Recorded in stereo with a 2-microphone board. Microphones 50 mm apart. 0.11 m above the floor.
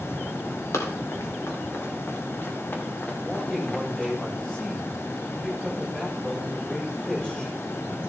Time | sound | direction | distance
0.7 | running footsteps | 80° left | 3 m
3.2 | a man speaking | 15° left (ahead or behind) | 5.5 m